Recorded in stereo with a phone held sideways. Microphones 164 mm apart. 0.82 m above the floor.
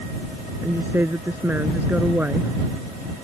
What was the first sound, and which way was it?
A woman speaking, 15° right (ahead or behind).